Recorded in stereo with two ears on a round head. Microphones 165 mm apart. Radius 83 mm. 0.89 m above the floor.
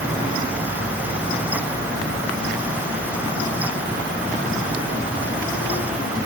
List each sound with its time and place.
Only background noise.